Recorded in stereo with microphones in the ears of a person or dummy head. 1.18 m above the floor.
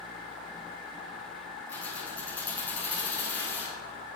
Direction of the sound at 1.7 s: 15° left (ahead or behind).